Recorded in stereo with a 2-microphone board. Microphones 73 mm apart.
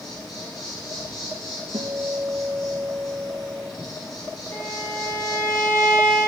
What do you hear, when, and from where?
0.0 s an insect: 70° left (ahead or behind), 6.5 m
1.7 s a guitar: 60° right (ahead or behind), 2.5 m
4.5 s a violin: 35° left (ahead or behind), 2 m